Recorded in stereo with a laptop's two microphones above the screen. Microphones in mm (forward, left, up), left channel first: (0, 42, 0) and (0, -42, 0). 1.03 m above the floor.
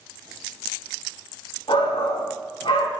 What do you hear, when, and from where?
1.7 s a shout: 80° left, 2 m